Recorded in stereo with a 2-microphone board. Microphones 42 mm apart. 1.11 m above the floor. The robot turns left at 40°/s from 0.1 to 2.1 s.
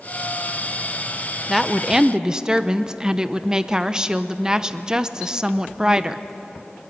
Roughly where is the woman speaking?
Centre.